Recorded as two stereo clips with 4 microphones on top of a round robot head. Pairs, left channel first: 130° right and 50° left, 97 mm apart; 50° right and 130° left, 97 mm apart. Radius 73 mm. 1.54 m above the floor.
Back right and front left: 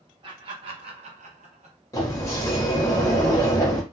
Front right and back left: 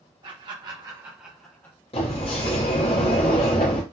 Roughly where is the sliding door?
Right.